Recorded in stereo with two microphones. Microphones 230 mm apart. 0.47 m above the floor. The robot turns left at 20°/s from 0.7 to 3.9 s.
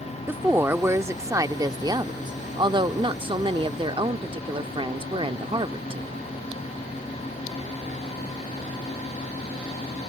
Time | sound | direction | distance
0.3 | a woman speaking | 10° right (ahead or behind) | ?